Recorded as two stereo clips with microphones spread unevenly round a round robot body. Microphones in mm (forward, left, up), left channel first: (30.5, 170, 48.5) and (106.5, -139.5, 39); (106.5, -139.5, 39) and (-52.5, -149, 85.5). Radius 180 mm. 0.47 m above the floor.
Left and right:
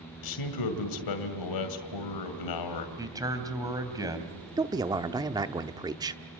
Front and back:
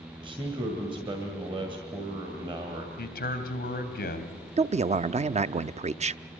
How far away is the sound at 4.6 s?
About 0.7 m.